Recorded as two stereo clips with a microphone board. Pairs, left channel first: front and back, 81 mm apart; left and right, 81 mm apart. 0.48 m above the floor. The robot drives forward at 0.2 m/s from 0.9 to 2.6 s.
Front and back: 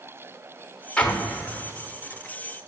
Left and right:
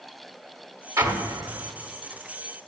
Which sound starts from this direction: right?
An explosion, at 1.0 s.